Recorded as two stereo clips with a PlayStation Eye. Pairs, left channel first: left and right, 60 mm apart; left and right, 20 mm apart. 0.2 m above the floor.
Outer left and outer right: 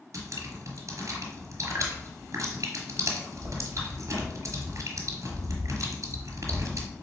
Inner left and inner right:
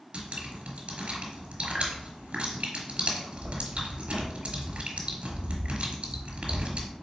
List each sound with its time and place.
0.1 s dripping: 65° right (ahead or behind), 1.2 m